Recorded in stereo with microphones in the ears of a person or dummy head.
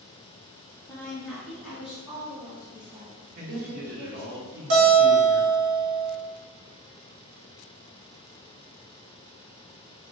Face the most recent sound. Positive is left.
turn(degrees=-60)  # may be behind; listen again after turning